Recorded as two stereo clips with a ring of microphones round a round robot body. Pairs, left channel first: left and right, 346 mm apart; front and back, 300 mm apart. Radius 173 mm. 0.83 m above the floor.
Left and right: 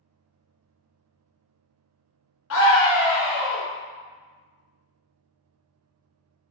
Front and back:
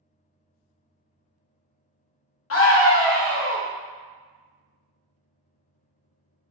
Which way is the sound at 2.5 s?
40° left.